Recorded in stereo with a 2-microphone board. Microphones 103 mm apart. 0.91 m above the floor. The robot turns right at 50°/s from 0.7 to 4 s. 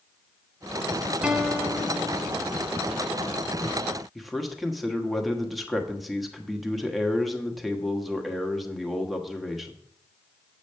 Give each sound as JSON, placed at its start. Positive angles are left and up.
{"t": 1.2, "sound": "a guitar", "azimuth_deg": -10, "distance_m": 0.9}
{"t": 4.2, "sound": "a man speaking", "side_deg": 0, "distance_m": 1.2}